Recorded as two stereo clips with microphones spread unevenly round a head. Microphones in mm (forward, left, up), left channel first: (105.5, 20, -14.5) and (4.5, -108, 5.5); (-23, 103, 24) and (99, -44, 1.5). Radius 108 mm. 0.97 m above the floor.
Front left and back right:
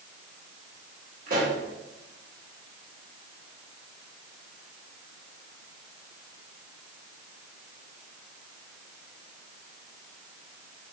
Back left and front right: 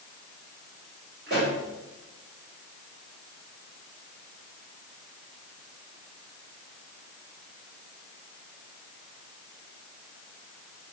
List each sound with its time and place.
1.3 s a pop: 95° right, 2.5 m